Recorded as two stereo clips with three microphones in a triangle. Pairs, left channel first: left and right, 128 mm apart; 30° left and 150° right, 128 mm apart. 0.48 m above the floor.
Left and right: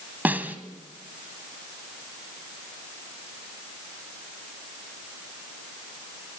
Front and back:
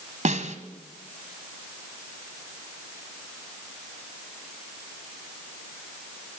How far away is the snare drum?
About 1.8 m.